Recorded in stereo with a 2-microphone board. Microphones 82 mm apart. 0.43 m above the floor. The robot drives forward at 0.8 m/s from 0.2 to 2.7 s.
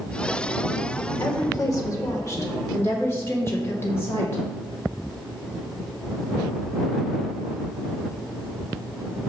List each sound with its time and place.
1.2 s a woman speaking: 40° left (ahead or behind), 1.1 m; by 4.4 s 30° left (ahead or behind), 1.5 m